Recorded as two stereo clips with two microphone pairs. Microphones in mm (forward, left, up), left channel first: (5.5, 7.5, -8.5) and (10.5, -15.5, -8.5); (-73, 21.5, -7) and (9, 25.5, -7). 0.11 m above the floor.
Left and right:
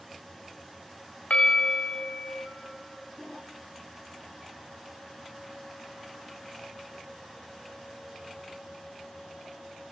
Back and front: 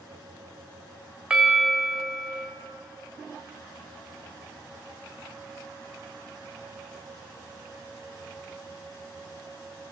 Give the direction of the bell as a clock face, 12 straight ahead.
9 o'clock.